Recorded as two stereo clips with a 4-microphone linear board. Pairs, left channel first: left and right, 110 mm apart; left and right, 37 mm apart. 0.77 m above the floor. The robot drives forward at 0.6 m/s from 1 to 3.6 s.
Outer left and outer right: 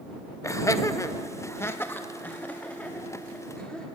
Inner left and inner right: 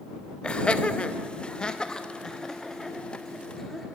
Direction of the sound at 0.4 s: 30° left (ahead or behind).